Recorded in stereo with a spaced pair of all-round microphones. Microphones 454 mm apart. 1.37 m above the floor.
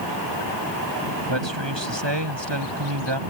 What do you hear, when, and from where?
1.3 s a man speaking: 70° right (ahead or behind); by 3.2 s 65° right (ahead or behind)